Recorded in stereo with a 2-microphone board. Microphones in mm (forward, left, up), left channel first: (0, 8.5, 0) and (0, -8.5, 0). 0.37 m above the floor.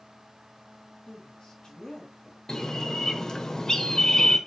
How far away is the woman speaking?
About 4.5 m.